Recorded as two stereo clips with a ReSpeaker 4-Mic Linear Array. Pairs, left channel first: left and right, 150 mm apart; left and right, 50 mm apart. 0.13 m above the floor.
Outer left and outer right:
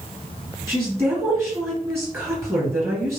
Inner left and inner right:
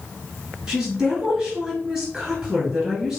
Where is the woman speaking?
15° right (ahead or behind), 2.5 m.